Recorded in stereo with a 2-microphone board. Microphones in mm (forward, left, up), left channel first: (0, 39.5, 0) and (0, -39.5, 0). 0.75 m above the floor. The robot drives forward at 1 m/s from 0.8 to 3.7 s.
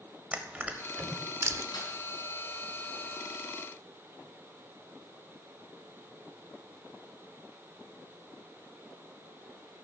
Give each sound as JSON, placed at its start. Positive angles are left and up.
{"t": 0.3, "sound": "crushing", "side_deg": -20, "distance_m": 1.2}
{"t": 1.7, "sound": "a snare drum", "side_deg": 75, "distance_m": 3.5}